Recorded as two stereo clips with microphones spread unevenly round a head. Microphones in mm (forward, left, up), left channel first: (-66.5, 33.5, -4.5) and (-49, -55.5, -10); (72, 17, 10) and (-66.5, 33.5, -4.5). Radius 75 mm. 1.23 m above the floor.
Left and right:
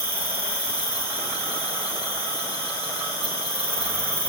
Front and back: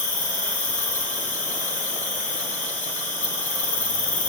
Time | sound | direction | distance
0.0 | an insect | 50° right | 1.5 m